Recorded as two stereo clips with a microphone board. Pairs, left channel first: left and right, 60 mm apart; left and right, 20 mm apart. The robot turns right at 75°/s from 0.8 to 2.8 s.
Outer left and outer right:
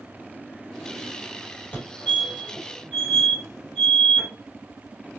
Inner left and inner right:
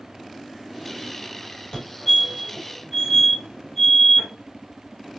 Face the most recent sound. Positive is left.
turn(degrees=10)  # may be behind; listen again after turning